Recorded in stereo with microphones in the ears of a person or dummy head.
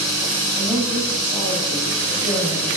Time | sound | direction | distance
0.6 | a woman speaking | 20° right (ahead or behind) | 3 m